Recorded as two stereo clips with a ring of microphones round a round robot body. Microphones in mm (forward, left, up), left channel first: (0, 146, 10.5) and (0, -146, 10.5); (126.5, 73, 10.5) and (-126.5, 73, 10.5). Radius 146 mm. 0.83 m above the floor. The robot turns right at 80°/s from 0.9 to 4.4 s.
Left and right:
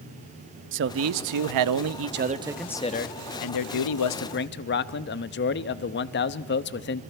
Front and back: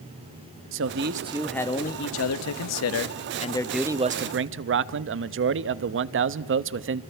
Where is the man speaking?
140° right, 0.7 m; by 7.0 s 140° left, 0.7 m.